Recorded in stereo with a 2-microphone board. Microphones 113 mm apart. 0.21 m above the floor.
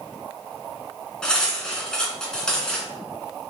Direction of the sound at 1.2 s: 5° left (ahead or behind).